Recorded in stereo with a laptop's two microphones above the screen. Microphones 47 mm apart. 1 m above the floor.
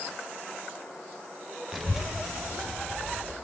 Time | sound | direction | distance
1.7 | a child speaking | 5° right (ahead or behind) | 1.0 m